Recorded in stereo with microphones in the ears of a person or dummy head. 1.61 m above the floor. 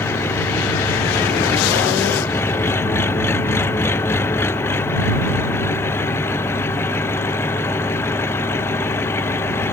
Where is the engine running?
15° left (ahead or behind).